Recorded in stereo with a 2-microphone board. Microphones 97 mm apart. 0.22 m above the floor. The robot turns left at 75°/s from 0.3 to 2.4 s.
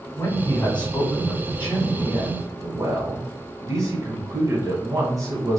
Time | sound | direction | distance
0.1 | a man speaking | 60° left | 1.5 m